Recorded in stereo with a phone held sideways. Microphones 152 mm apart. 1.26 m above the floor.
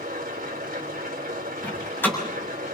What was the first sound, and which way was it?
An engine running, 80° right.